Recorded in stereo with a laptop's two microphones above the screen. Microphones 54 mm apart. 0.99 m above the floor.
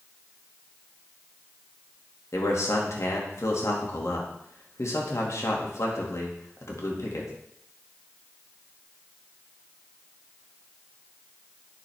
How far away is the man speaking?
About 1.8 m.